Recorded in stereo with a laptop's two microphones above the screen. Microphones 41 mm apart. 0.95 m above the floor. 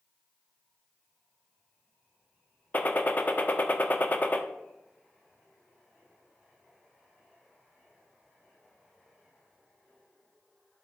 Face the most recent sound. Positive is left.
turn(degrees=40)  # may be behind; listen again after turning